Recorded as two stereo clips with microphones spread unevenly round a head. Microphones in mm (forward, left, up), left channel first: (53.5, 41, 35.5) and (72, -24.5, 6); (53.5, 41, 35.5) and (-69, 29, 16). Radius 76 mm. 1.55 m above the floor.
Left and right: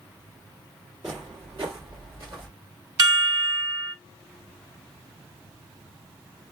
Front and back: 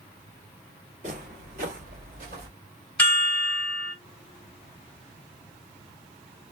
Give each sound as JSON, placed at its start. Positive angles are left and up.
{"t": 1.0, "sound": "footsteps", "azimuth_deg": -140, "distance_m": 2.0}
{"t": 3.0, "sound": "a chime", "azimuth_deg": -75, "distance_m": 1.2}